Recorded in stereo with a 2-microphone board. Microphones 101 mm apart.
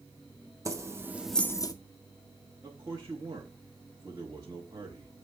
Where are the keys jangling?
30° right (ahead or behind), 1.1 m; by 1.7 s 40° left (ahead or behind), 0.6 m.